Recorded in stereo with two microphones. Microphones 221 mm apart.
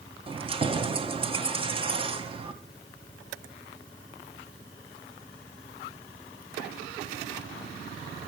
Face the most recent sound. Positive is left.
turn(degrees=-25)  # may be behind; listen again after turning